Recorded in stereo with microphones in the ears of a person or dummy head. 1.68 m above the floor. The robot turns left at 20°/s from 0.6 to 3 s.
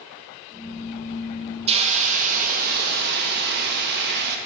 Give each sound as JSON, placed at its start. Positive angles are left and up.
{"t": 1.7, "sound": "a hiss", "side_deg": -35, "distance_m": 0.7}